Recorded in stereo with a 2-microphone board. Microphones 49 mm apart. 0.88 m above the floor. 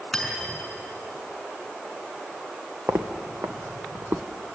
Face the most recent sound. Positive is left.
turn(degrees=-50)  # may be behind; listen again after turning